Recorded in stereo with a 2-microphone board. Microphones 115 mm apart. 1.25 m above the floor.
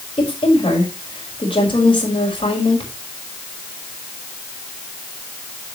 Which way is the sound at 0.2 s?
45° left (ahead or behind).